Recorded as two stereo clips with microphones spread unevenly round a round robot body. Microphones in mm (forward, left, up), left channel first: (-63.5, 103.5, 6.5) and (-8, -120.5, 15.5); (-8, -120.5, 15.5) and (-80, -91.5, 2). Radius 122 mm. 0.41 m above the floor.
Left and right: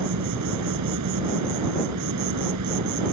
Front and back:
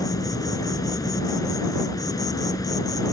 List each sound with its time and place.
0.0 s an insect: 60° right